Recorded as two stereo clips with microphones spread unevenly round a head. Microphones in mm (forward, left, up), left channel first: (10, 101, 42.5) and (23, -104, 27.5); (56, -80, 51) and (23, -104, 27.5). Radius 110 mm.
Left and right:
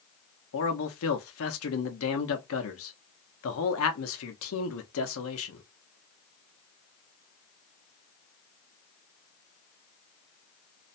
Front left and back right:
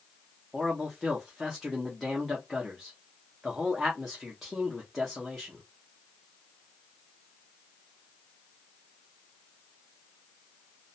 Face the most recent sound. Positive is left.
turn(degrees=110)